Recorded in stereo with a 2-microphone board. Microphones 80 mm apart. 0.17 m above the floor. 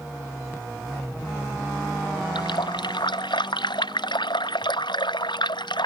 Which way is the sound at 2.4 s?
80° left.